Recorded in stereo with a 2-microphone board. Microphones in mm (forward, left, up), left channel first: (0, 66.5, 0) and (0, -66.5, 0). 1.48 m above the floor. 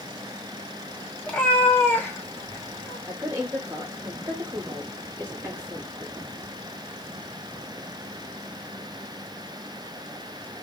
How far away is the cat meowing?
About 0.9 m.